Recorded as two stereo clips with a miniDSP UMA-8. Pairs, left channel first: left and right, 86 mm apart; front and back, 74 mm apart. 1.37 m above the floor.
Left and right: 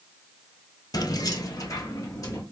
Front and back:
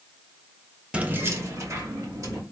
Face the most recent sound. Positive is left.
turn(degrees=140)